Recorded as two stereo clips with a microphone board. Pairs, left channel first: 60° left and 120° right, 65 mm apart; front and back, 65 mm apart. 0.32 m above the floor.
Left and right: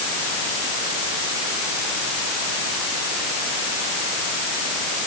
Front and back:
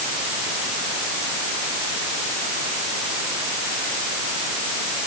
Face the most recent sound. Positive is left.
No sound to turn to.